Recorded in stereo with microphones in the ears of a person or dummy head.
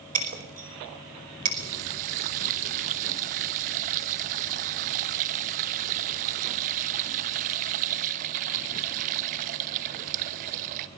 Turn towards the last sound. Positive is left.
turn(degrees=-50)  # may be behind; listen again after turning